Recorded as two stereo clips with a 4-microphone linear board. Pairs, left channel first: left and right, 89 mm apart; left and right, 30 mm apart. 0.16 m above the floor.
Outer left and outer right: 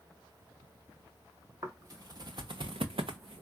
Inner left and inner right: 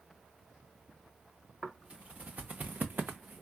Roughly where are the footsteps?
Right.